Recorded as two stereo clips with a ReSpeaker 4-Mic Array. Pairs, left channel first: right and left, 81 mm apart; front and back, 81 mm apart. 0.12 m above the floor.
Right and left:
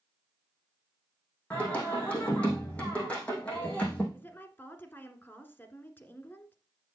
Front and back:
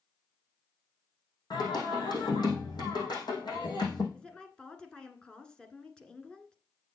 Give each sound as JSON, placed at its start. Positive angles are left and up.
{"t": 1.5, "sound": "singing", "azimuth_deg": -15, "distance_m": 4.5}
{"t": 4.1, "sound": "a woman speaking", "azimuth_deg": -65, "distance_m": 1.5}